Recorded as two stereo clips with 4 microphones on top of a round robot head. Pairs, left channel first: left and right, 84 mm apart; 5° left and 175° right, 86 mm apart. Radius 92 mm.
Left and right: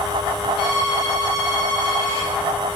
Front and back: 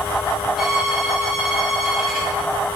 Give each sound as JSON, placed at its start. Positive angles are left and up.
{"t": 0.6, "sound": "a violin", "azimuth_deg": 100, "distance_m": 8.0}